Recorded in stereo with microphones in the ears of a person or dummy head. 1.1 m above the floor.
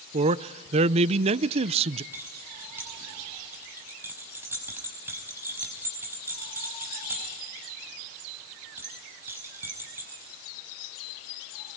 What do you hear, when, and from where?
0.1 s a man speaking: 30° right (ahead or behind), 0.5 m
2.1 s keys jangling: 10° right (ahead or behind), 5 m